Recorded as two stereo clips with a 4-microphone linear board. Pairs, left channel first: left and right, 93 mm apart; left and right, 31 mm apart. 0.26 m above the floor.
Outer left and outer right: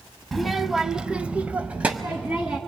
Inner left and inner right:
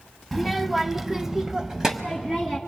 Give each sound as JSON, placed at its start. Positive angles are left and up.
{"t": 0.3, "sound": "a child speaking", "side_deg": 0, "distance_m": 0.9}